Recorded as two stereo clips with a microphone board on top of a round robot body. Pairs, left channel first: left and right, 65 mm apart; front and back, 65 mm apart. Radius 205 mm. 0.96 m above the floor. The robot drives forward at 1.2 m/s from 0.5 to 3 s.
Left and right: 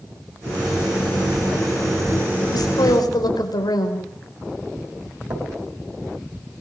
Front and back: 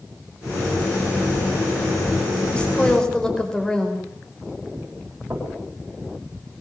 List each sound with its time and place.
2.5 s a woman speaking: 75° left, 5 m; by 4.0 s 80° left, 5 m
5.3 s knocking: 125° right, 6 m